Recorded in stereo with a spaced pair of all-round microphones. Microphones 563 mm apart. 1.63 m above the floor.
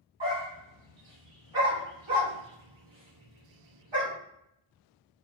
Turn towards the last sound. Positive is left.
turn(degrees=-50)  # may be behind; listen again after turning